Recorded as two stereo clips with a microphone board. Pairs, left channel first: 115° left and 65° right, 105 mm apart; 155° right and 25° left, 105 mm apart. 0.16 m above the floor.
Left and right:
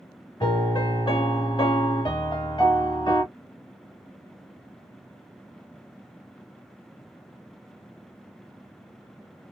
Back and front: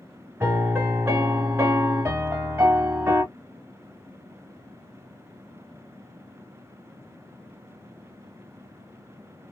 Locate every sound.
0.4 s a piano: 85° left, 1.2 m